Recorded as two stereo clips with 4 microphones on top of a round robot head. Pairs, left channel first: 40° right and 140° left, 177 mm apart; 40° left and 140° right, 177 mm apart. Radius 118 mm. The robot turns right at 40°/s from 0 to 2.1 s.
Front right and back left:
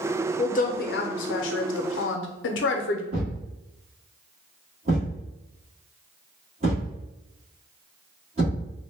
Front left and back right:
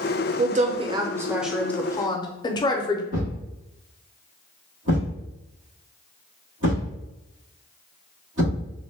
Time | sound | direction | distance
0.4 | a woman speaking | 95° right | 0.6 m
3.1 | a thud | 165° right | 1.3 m